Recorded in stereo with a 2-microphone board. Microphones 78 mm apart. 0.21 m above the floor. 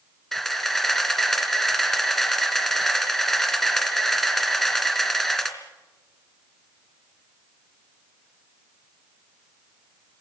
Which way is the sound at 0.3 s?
5° left (ahead or behind).